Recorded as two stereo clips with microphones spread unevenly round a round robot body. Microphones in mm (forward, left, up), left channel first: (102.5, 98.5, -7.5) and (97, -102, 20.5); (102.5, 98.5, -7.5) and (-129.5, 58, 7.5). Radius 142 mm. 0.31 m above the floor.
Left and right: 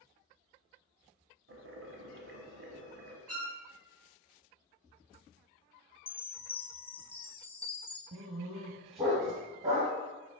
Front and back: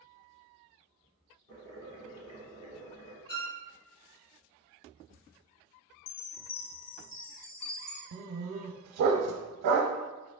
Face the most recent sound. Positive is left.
turn(degrees=-165)